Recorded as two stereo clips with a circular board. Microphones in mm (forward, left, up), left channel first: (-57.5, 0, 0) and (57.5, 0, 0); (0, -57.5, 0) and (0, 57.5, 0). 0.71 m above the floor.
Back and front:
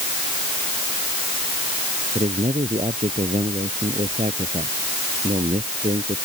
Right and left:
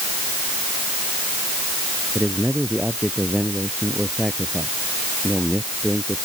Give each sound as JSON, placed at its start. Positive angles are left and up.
{"t": 2.1, "sound": "a man speaking", "azimuth_deg": 10}